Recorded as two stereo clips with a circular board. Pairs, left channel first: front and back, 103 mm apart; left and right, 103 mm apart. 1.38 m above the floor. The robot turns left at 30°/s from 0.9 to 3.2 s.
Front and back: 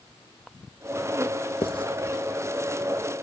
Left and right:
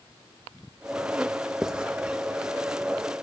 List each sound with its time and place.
1.6 s writing: 5° right, 0.8 m; by 1.9 s 10° right, 0.8 m